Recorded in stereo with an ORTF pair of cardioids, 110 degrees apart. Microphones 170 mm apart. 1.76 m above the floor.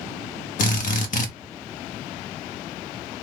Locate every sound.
0.6 s a drill: 55° left, 0.8 m